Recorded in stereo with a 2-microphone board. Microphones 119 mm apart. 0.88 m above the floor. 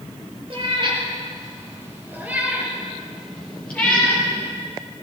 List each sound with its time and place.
0.5 s a cat meowing: 50° right (ahead or behind), 3.5 m; by 4.2 s 20° left (ahead or behind), 4.5 m